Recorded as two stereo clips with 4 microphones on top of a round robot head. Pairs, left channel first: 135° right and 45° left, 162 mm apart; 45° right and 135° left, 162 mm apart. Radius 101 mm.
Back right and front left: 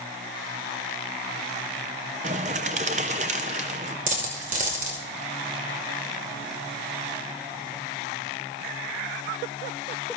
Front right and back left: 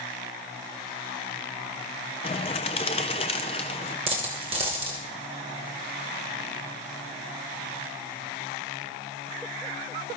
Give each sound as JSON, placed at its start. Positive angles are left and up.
{"t": 2.2, "sound": "a bird", "azimuth_deg": 5, "distance_m": 0.5}
{"t": 4.1, "sound": "a dropped coin", "azimuth_deg": 80, "distance_m": 1.9}